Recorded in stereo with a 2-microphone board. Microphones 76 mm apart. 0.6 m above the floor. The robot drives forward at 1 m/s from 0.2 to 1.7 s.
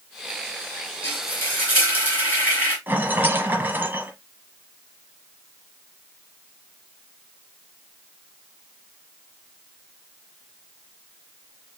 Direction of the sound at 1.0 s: 25° left (ahead or behind).